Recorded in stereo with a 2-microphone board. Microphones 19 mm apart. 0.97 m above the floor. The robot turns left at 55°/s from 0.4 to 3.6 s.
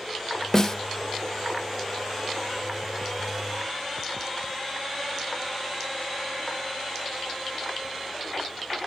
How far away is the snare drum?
About 0.7 m.